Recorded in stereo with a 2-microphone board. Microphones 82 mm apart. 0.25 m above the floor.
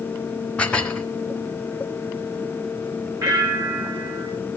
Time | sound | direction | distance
0.6 | dishes clattering | 10° left (ahead or behind) | 1.6 m
3.2 | a bell | 55° right (ahead or behind) | 5.5 m